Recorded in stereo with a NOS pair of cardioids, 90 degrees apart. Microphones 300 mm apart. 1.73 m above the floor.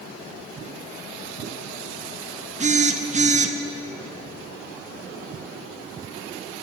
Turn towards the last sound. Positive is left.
turn(degrees=-25)